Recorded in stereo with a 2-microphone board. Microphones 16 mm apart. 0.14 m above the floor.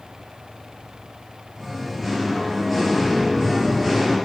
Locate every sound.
1.6 s singing: 15° right (ahead or behind), 3.5 m